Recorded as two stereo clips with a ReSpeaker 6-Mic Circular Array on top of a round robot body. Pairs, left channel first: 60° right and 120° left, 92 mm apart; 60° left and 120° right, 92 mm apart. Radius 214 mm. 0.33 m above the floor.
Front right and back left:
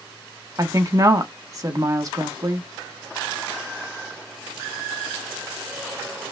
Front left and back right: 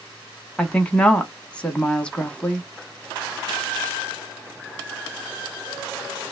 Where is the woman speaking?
130° left, 1.1 m.